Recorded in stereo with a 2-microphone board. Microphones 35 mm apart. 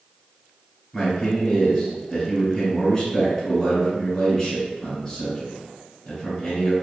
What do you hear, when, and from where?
0.9 s a man speaking: 20° left (ahead or behind), 1.7 m